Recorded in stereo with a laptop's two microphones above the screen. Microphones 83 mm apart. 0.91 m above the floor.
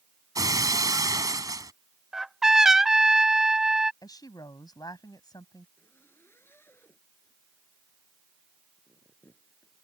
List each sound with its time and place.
0.3 s breaking glass: 45° right (ahead or behind)
2.1 s a trumpet: 5° right (ahead or behind)
4.0 s a woman speaking: 50° left (ahead or behind)
5.8 s a zipper: 25° left (ahead or behind)